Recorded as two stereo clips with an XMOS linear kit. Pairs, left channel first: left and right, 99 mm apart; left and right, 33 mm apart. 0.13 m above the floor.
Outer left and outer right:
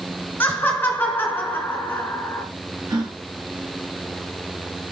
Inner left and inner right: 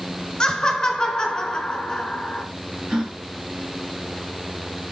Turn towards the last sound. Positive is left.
turn(degrees=-40)  # may be behind; listen again after turning